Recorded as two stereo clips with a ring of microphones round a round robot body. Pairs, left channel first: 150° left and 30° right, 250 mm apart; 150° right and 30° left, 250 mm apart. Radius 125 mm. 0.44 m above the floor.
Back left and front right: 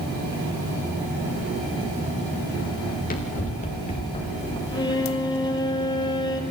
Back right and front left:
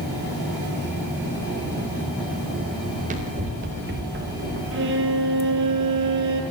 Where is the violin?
75° left, 2.5 m.